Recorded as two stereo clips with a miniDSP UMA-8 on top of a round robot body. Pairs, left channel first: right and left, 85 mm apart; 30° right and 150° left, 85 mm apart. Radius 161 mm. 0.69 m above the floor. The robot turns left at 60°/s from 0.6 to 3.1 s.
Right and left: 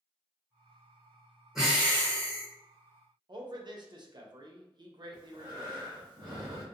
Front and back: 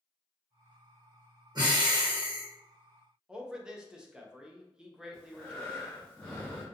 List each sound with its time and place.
1.6 s breathing: 175° left, 1.3 m; by 2.5 s 115° left, 1.3 m
3.3 s a man speaking: 70° left, 0.7 m
5.1 s breathing: 45° left, 0.5 m